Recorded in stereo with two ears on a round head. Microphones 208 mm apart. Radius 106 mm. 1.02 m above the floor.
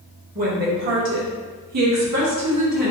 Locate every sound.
0.3 s a woman speaking: 35° right (ahead or behind), 1.0 m; by 2.9 s 85° right, 1.5 m